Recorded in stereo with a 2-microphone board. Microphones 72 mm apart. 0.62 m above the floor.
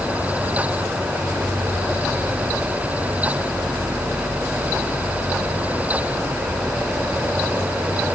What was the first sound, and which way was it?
Only background noise.